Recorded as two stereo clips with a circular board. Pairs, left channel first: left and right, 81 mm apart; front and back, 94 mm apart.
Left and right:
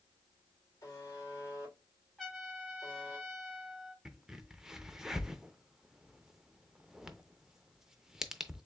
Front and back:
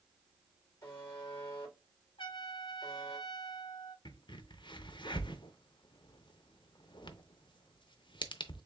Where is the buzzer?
40° left, 2.5 m.